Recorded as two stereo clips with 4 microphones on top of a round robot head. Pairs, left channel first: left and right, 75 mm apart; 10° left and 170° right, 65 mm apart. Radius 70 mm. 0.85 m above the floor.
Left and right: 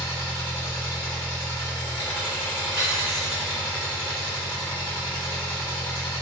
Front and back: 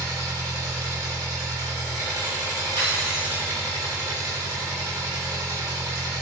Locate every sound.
0.0 s an engine running: 160° left, 1.9 m
2.8 s cutlery clinking: straight behind, 1.3 m